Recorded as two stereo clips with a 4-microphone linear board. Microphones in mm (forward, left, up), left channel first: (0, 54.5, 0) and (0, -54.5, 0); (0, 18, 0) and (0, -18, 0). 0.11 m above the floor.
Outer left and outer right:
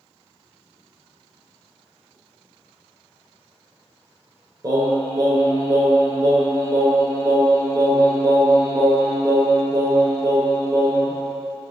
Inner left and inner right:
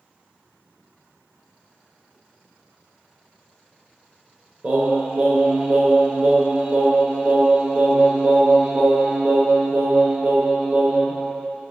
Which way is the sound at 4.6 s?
35° right (ahead or behind).